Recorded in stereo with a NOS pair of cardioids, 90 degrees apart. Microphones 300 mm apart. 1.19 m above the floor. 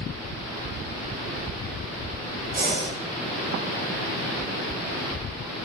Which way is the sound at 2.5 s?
30° right.